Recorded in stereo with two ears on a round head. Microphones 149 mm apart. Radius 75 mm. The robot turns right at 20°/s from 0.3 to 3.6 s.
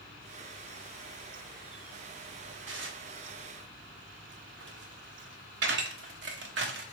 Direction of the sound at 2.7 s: 80° right.